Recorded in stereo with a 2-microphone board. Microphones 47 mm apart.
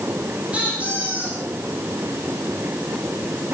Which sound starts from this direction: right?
A squeak, at 0.5 s.